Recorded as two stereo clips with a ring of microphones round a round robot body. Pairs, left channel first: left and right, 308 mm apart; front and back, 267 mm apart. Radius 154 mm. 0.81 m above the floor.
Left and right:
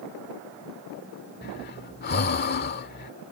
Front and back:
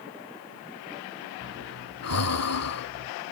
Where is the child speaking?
No child speaking in this recording.